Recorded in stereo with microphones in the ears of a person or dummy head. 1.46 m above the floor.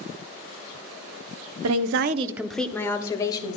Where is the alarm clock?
I don't hear an alarm clock.